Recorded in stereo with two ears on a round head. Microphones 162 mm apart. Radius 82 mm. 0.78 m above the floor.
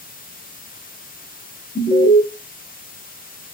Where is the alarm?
30° left (ahead or behind), 0.9 m.